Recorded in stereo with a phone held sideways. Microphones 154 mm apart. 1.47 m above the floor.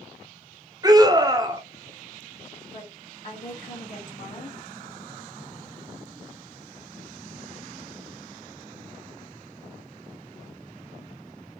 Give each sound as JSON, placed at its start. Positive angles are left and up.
{"t": 0.8, "sound": "a scream", "side_deg": -25, "distance_m": 0.8}
{"t": 2.6, "sound": "a woman speaking", "side_deg": 60, "distance_m": 1.8}